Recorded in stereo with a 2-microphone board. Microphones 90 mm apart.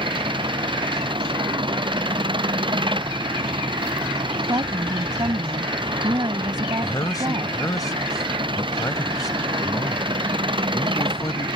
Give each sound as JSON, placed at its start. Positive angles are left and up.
{"t": 0.0, "sound": "an engine running", "side_deg": -65}
{"t": 4.5, "sound": "a woman speaking", "side_deg": -55}
{"t": 6.8, "sound": "a man speaking", "side_deg": 45}